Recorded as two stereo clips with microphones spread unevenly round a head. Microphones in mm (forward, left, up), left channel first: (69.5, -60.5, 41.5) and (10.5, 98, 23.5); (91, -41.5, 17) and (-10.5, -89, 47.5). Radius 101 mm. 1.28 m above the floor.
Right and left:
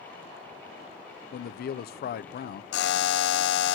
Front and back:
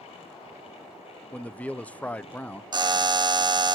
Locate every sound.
1.3 s a man speaking: 45° right, 0.6 m
2.7 s a buzzer: 95° right, 0.7 m